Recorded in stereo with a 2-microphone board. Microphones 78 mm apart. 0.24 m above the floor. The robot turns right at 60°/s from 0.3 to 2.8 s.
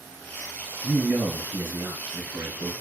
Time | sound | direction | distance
0.8 | a man speaking | 175° right | 2.5 m